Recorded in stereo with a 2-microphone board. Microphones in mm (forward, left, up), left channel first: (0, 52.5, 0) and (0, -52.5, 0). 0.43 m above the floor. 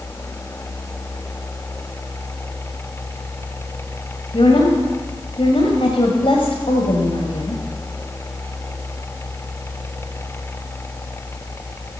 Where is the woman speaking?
60° left (ahead or behind), 2 m.